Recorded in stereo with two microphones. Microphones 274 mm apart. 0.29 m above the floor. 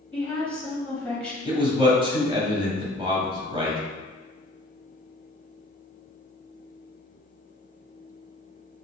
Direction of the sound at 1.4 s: 20° right (ahead or behind).